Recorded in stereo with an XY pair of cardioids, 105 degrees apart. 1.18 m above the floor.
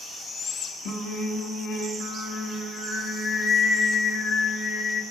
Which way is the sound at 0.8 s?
70° left.